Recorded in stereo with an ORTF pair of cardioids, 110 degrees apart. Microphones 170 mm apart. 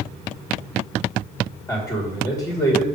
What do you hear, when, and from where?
1.7 s a man speaking: 10° left, 2 m